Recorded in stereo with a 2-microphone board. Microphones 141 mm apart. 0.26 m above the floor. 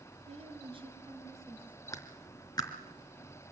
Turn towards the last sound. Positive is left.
turn(degrees=30)  # may be behind; listen again after turning